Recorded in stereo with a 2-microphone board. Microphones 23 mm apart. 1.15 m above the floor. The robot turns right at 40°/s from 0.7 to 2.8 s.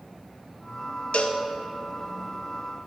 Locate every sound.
1.1 s a cowbell: 70° left (ahead or behind), 0.7 m